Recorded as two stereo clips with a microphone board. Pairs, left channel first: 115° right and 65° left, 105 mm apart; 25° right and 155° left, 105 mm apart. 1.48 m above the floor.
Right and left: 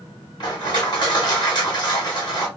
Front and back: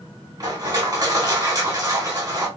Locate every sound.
0.4 s crushing: 150° right, 1.7 m